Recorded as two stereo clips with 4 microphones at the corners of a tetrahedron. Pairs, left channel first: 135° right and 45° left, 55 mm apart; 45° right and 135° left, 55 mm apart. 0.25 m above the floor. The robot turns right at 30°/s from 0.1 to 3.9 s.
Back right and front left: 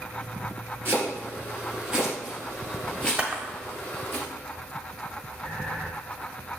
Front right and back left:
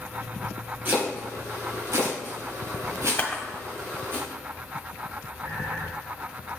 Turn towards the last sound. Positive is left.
turn(degrees=140)